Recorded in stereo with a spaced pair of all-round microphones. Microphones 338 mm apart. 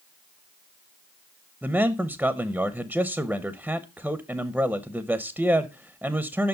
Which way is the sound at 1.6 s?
5° right (ahead or behind).